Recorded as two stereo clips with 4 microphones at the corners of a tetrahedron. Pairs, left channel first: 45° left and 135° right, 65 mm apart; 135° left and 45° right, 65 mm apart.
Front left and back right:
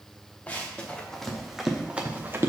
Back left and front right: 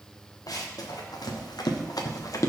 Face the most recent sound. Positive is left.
turn(degrees=170)